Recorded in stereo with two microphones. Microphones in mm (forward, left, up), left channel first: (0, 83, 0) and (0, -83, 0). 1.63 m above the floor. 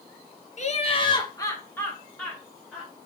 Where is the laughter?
45° left (ahead or behind), 0.7 m; by 2.9 s centre (ahead or behind), 1.6 m.